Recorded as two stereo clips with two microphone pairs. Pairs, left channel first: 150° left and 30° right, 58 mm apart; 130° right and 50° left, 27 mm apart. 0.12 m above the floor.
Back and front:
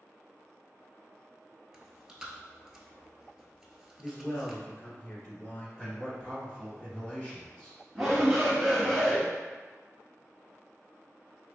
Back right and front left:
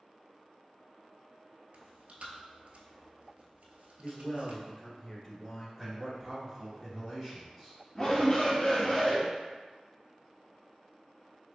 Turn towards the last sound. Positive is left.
turn(degrees=-120)